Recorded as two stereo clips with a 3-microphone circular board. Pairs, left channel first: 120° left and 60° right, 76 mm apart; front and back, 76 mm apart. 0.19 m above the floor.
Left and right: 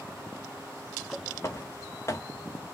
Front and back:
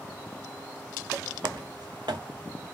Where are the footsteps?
170° left, 1.2 m.